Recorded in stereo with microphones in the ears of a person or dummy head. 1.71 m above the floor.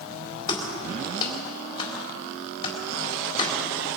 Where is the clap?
25° left (ahead or behind), 4 m.